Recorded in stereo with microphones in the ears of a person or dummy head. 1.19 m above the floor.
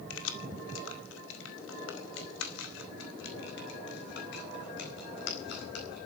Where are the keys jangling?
80° left, 2 m; by 6.0 s 65° left (ahead or behind), 5 m.